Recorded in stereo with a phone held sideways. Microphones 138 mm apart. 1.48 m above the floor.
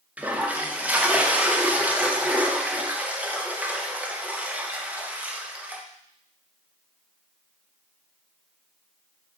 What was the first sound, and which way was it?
A toilet flushing, 10° right (ahead or behind).